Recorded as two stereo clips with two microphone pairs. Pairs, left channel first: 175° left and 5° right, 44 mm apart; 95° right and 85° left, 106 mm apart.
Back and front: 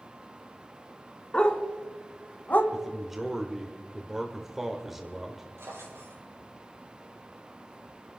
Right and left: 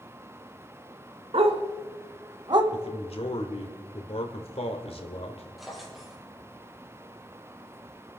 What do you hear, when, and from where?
1.3 s a dog barking: 105° left, 1.7 m; by 2.6 s 125° left, 1.3 m
2.7 s a man speaking: 90° right, 1.7 m
5.6 s a drawer: 5° right, 5 m